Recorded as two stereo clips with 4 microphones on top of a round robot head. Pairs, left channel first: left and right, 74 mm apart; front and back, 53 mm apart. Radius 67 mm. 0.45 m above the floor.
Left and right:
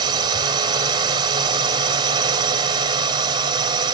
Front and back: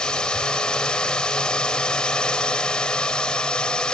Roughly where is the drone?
Right.